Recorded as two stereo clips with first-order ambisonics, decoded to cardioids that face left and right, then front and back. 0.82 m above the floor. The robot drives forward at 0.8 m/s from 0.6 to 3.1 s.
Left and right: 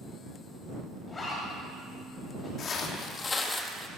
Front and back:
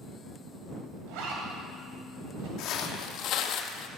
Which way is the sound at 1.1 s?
170° left.